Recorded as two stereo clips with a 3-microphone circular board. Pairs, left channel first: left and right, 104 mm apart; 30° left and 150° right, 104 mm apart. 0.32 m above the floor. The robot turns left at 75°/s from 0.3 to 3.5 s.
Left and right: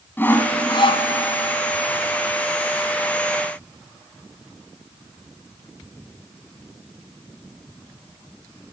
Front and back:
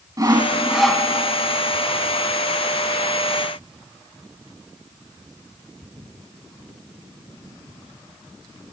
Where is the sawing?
160° left, 1.9 m; by 1.1 s 100° left, 1.9 m.